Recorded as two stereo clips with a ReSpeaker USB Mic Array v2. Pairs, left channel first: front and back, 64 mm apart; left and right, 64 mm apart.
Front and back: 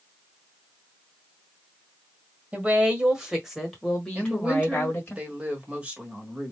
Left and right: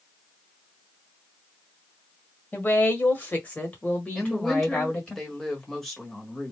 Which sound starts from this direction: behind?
A woman speaking, at 4.2 s.